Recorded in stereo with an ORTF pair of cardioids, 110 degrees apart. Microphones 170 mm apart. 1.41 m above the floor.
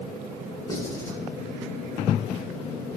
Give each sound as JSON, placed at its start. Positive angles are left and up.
{"t": 0.7, "sound": "writing", "azimuth_deg": 20, "distance_m": 4.0}